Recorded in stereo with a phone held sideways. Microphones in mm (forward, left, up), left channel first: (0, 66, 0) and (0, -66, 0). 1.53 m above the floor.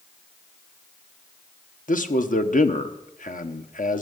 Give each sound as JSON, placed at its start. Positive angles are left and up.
{"t": 1.9, "sound": "a man speaking", "side_deg": 85, "distance_m": 1.1}